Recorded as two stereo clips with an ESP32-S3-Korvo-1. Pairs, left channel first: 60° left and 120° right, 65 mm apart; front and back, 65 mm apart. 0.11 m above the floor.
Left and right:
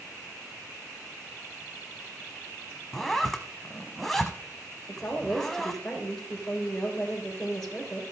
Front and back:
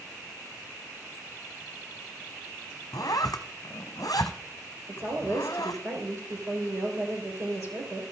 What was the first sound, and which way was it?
A zipper, 30° right.